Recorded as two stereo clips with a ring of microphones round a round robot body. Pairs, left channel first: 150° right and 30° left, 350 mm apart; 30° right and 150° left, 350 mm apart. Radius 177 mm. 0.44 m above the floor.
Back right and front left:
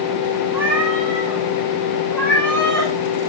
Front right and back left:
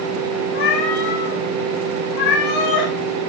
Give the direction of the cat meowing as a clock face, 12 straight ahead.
2 o'clock.